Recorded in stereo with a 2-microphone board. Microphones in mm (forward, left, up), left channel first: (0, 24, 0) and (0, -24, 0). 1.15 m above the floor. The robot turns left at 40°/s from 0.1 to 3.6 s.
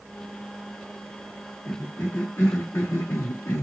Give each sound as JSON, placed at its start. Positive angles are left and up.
{"t": 1.7, "sound": "a cough", "azimuth_deg": 150, "distance_m": 0.6}